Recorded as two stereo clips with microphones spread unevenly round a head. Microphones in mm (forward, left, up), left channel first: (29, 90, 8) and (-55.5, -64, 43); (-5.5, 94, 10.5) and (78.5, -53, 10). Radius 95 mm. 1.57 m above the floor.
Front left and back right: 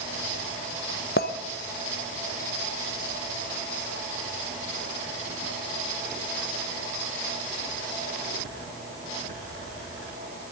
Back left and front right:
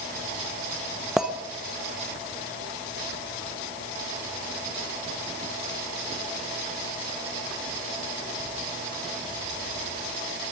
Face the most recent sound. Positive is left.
turn(degrees=25)